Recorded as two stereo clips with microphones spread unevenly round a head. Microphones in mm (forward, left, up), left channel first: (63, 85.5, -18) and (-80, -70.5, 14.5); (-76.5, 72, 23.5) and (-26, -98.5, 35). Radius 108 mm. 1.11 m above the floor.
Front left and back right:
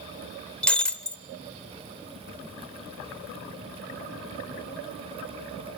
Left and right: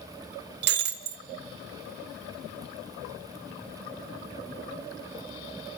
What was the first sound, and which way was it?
Breaking glass, 45° right.